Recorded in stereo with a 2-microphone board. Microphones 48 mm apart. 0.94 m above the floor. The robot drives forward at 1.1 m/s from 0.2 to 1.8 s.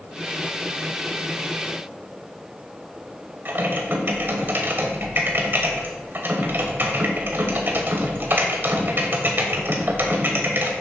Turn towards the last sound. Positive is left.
turn(degrees=-50)  # may be behind; listen again after turning